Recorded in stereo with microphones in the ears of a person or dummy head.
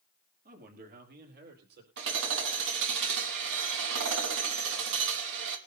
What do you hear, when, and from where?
0.5 s a man speaking: 50° right (ahead or behind), 2.5 m; by 1.9 s 60° right (ahead or behind), 4.5 m
2.0 s hammering: 65° right (ahead or behind), 2.5 m